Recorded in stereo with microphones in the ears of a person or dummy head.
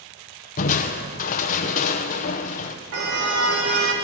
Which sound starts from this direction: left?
Crushing, at 0.6 s.